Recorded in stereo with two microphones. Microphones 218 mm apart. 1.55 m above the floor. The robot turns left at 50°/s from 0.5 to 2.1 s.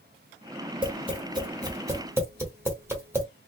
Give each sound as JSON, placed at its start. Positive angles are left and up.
{"t": 0.8, "sound": "tapping", "side_deg": -20, "distance_m": 1.3}